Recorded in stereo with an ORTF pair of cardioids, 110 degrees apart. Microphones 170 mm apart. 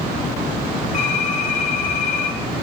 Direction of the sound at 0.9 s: 45° left.